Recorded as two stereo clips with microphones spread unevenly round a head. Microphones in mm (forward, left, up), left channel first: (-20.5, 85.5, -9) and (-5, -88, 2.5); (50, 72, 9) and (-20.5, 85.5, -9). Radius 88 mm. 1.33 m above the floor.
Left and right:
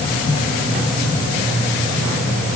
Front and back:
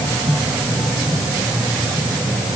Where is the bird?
I don't hear a bird.